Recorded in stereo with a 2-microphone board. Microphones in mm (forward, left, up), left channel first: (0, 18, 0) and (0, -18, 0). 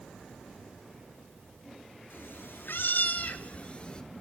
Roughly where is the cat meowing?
Left.